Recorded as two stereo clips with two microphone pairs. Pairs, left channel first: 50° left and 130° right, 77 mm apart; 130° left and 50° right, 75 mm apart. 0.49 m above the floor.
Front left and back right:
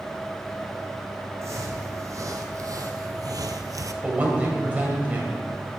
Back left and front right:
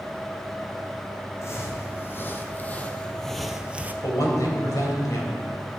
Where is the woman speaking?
165° left, 2.5 m.